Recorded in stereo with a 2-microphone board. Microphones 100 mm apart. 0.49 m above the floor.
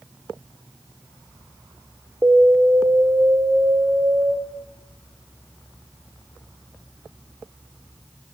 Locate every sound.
2.2 s an alarm: 25° right (ahead or behind), 0.9 m